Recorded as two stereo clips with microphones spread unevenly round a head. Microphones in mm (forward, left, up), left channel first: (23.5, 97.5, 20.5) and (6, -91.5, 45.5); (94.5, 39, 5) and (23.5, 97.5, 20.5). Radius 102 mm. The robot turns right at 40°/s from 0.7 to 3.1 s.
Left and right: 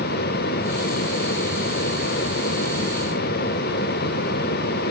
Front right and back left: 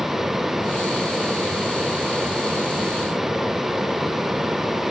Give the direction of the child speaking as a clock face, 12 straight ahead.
I don't hear a child speaking.